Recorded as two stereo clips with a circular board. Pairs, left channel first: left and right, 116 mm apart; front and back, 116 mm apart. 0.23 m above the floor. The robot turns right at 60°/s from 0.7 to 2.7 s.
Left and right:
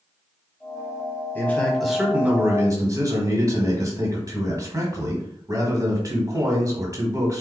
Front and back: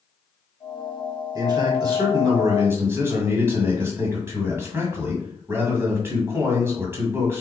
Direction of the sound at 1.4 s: 150° left.